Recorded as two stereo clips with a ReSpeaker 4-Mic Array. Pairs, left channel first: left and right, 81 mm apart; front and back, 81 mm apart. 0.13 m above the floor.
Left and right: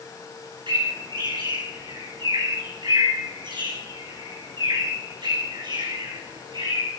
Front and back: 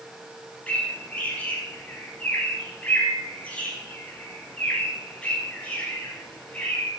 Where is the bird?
70° right, 8 m.